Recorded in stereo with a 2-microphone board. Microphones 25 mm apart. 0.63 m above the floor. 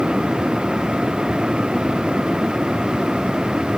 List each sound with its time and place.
Only background noise.